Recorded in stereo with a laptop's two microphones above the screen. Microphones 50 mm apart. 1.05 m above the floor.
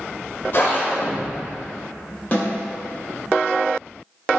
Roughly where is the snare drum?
Left.